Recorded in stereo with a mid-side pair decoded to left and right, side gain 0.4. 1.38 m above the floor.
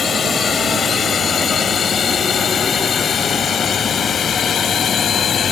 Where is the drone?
55° left; by 5.5 s 60° left.